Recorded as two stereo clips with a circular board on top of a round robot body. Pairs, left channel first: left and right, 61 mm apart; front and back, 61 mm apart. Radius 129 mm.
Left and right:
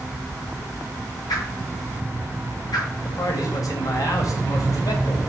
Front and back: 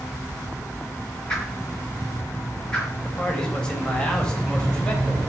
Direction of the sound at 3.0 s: 75° left.